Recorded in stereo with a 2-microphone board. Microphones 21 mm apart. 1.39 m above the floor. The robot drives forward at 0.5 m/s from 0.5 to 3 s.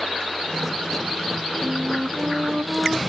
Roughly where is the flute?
Right.